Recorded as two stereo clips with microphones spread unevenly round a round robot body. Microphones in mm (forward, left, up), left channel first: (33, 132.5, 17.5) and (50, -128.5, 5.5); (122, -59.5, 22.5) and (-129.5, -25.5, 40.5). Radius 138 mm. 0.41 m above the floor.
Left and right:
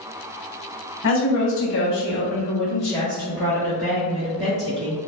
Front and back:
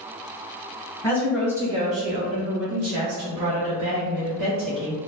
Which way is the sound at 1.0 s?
65° left.